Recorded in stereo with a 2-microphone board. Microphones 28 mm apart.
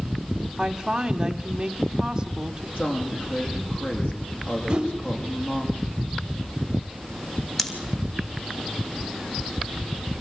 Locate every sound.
0.6 s a woman speaking: 20° right (ahead or behind), 1.1 m
2.8 s a woman speaking: 60° left (ahead or behind), 8 m
4.7 s a whoosh: 25° right (ahead or behind), 2.0 m
7.6 s scissors: 5° left (ahead or behind), 3 m